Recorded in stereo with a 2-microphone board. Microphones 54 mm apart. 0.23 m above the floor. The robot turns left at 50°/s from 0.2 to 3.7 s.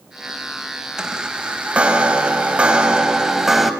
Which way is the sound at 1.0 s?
10° right (ahead or behind).